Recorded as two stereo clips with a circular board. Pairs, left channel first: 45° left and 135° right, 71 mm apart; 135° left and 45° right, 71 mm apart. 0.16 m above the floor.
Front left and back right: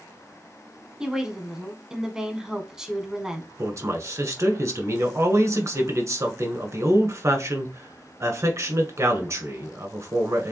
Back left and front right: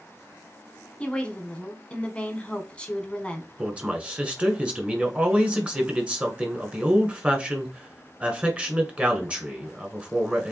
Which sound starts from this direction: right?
A man speaking, at 3.6 s.